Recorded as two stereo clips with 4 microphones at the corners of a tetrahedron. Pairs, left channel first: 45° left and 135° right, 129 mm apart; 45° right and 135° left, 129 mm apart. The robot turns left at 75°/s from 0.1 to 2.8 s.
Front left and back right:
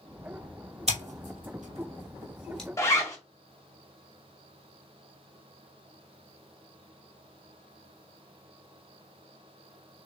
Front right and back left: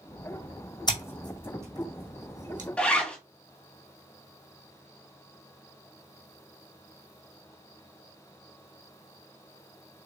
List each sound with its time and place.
0.9 s scissors: 100° right, 1.9 m; by 2.7 s 125° left, 1.9 m
2.8 s a zipper: 25° left, 1.3 m; by 3.2 s 20° left, 1.3 m